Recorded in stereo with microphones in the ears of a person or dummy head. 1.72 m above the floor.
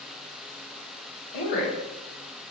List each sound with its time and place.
1.3 s a woman speaking: 55° left (ahead or behind), 1.2 m